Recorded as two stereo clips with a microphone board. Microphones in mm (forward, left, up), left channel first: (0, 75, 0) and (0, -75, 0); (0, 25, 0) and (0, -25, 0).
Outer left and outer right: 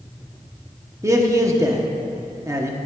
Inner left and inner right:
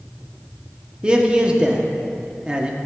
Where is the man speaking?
20° right (ahead or behind), 0.8 m.